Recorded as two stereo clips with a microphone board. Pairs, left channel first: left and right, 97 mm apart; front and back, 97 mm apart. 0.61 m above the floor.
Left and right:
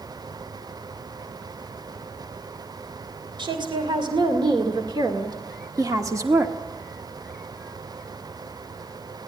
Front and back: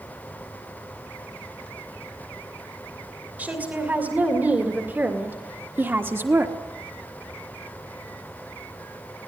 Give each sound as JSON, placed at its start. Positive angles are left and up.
{"t": 3.4, "sound": "a woman speaking", "azimuth_deg": -110, "distance_m": 3.0}